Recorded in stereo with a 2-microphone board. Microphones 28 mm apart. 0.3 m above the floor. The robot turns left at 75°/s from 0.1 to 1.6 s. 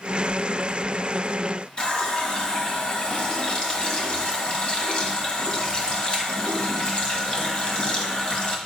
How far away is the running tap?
About 1.2 m.